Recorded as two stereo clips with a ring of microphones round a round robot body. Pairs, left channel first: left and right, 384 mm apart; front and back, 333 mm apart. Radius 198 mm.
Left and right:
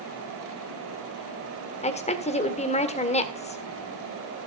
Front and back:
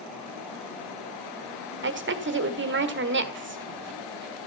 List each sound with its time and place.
1.8 s a woman speaking: 155° left, 1.7 m